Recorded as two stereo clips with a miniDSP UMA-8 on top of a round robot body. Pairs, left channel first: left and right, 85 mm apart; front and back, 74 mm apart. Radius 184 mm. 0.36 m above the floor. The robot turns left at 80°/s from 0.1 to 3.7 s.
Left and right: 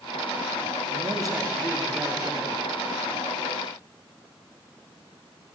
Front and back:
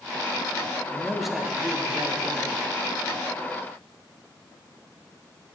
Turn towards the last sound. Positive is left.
turn(degrees=70)